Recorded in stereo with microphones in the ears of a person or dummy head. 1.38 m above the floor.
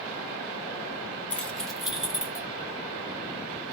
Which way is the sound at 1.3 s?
10° left (ahead or behind).